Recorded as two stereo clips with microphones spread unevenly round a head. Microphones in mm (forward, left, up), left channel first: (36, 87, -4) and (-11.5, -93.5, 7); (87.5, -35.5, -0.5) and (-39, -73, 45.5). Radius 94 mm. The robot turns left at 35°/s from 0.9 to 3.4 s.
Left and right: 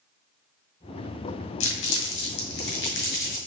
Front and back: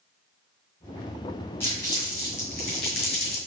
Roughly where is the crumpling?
Left.